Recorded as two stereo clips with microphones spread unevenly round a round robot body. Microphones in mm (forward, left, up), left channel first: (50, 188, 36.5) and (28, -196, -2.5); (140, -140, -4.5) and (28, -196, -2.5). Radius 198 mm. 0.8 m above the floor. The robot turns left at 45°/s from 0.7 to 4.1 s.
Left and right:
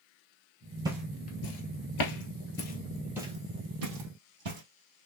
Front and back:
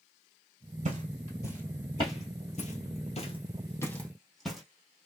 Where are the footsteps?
175° right, 1.2 m; by 4.6 s 65° right, 2.5 m.